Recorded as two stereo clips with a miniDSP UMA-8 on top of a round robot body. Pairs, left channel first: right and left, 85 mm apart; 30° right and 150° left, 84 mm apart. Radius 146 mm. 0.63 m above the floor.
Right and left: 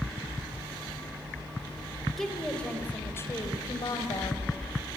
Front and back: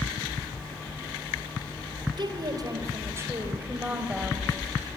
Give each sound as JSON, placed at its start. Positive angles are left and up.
{"t": 2.2, "sound": "a woman speaking", "azimuth_deg": -175, "distance_m": 3.5}